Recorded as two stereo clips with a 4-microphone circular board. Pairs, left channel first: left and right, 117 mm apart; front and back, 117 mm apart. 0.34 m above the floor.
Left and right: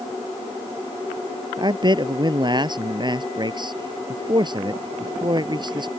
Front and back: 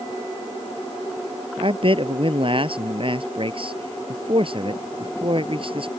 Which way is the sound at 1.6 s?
140° right.